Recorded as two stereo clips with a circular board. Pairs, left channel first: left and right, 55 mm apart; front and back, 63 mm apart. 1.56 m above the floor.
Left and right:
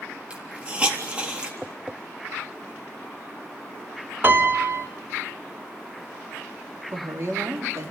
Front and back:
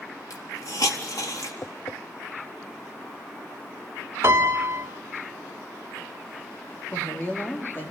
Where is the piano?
135° right, 2.5 m.